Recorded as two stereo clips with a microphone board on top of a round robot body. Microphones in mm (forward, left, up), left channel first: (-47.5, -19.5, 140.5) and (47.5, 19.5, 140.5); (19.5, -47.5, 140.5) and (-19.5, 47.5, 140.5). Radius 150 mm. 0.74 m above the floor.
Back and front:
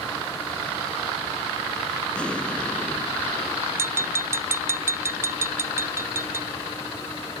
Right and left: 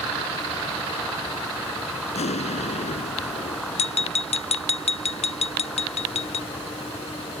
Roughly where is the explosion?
Right.